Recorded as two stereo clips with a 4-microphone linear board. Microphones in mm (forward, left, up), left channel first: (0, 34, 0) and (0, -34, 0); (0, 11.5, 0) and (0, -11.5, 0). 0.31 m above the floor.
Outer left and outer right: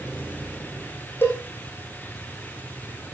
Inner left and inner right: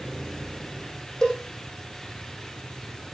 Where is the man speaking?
I don't hear a man speaking.